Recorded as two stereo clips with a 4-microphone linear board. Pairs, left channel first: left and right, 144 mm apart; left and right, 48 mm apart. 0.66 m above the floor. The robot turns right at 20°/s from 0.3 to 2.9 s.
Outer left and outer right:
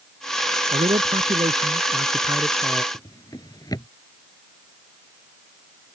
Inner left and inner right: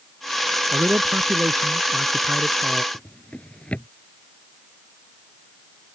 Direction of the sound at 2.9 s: 25° left (ahead or behind).